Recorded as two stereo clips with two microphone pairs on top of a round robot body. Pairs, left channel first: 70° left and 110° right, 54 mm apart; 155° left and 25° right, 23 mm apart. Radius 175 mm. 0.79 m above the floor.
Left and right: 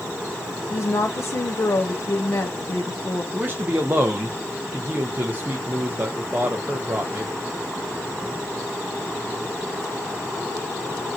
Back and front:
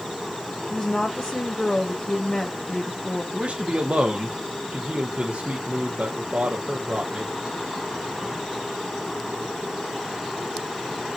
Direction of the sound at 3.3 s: 55° right.